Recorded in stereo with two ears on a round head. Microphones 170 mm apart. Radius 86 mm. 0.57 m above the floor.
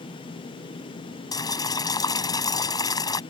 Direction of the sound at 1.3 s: 20° left (ahead or behind).